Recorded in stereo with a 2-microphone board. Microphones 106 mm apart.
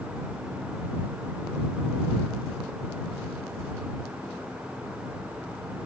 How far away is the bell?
I don't hear a bell.